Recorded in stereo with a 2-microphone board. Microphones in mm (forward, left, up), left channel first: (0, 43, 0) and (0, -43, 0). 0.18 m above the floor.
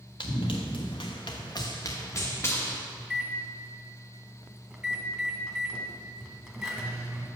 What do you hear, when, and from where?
0.2 s running footsteps: 75° left (ahead or behind), 1.2 m; by 2.8 s 25° left (ahead or behind), 1.4 m
3.0 s a microwave: 10° right (ahead or behind), 0.8 m